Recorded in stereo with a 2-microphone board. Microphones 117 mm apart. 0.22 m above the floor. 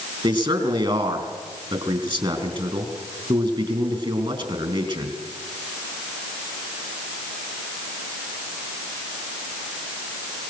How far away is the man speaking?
About 3.5 m.